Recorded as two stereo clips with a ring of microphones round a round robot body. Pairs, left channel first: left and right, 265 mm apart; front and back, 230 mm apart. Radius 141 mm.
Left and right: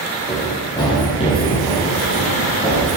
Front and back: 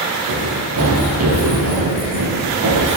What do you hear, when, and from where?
0.3 s running footsteps: 165° left, 5 m; by 3.0 s 160° left, 6.5 m